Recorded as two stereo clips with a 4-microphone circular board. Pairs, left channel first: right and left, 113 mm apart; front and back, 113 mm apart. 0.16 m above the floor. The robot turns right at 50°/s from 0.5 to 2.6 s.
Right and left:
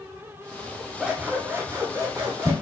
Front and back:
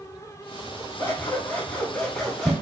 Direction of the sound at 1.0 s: 25° left.